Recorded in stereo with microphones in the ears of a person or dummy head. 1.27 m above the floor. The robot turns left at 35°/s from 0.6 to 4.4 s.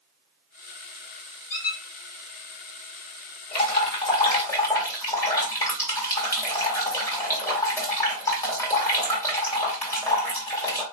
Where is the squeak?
45° left (ahead or behind), 0.9 m.